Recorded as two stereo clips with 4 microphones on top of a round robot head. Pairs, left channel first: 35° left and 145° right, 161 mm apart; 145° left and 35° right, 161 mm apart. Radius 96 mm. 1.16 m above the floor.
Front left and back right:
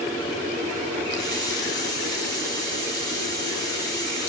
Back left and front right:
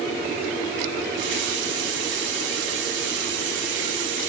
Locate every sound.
1.1 s a running tap: 30° right, 3 m